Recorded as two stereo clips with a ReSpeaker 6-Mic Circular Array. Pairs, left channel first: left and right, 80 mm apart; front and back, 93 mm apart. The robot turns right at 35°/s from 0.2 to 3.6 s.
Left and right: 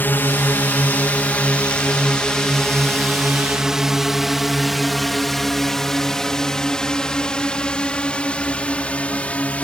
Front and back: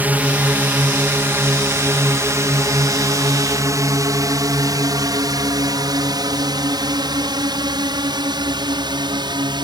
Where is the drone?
125° left; by 9.7 s 160° left.